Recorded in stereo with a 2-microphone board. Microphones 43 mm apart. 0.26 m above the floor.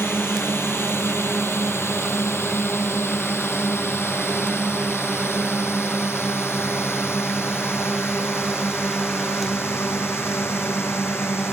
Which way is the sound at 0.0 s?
75° left (ahead or behind).